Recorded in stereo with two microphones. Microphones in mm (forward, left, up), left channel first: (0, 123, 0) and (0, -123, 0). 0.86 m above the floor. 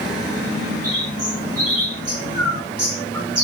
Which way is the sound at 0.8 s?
75° right (ahead or behind).